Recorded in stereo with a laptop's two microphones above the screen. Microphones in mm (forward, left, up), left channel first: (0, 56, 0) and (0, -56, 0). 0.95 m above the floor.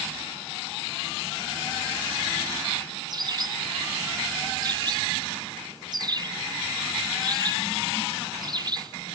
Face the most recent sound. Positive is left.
turn(degrees=-40)  # may be behind; listen again after turning